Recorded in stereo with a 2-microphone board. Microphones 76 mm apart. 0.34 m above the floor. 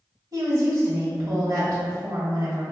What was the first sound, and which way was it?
A woman speaking, 50° right (ahead or behind).